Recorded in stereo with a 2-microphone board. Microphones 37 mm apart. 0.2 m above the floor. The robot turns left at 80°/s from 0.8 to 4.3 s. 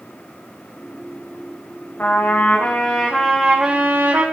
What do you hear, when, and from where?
2.0 s a trumpet: 110° left, 5 m; by 4.2 s 70° right, 5 m